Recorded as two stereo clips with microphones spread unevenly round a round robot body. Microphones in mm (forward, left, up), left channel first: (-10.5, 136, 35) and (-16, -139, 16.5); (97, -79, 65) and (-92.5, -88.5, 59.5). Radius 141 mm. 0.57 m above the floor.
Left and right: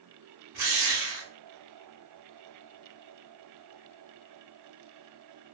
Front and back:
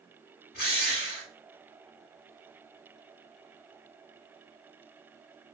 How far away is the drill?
About 2.5 m.